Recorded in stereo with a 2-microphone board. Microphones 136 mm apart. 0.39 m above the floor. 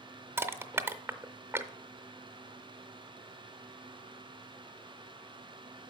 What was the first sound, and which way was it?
Crushing, 15° right (ahead or behind).